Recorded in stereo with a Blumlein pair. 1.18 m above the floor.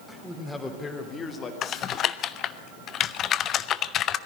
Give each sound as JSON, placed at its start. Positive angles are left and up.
{"t": 0.1, "sound": "a man speaking", "azimuth_deg": 5, "distance_m": 3.5}
{"t": 1.6, "sound": "typing on a keyboard", "azimuth_deg": 30, "distance_m": 0.7}